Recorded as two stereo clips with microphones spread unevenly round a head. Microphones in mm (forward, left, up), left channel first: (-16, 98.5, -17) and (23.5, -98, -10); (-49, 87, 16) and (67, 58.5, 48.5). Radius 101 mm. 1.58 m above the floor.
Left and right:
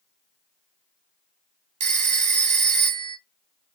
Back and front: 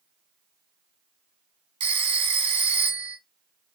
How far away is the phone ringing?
About 1.0 m.